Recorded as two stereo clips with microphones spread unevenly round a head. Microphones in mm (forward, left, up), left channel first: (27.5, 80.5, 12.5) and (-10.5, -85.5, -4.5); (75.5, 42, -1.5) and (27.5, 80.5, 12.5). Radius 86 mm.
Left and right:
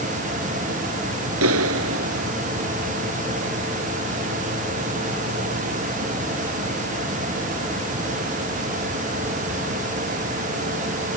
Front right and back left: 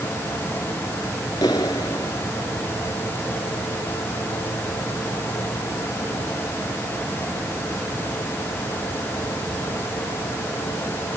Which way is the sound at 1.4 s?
105° right.